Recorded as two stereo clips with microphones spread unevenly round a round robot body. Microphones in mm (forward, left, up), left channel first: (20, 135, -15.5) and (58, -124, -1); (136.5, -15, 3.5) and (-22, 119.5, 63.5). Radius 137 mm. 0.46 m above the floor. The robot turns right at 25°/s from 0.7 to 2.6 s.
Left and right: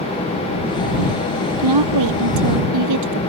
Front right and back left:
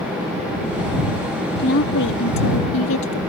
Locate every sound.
1.6 s a woman speaking: 95° right; by 3.2 s 70° right